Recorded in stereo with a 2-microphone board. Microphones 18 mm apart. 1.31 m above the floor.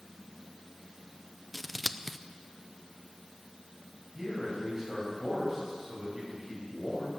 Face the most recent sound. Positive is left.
turn(degrees=-10)  # may be behind; listen again after turning